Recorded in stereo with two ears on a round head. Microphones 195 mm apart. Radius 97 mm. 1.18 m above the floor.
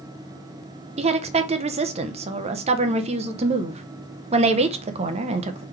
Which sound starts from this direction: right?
A woman speaking, at 1.0 s.